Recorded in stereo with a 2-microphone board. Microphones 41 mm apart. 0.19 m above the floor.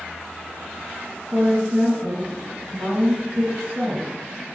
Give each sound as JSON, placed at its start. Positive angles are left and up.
{"t": 1.3, "sound": "a woman speaking", "side_deg": -50, "distance_m": 1.7}